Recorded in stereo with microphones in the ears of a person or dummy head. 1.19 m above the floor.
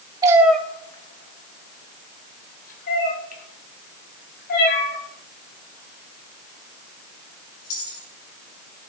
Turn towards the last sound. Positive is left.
turn(degrees=50)  # may be behind; listen again after turning